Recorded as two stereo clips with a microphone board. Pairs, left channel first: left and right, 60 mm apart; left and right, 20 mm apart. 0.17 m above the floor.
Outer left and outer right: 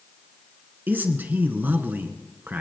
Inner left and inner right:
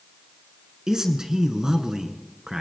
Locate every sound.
0.9 s a man speaking: 35° right (ahead or behind), 1.8 m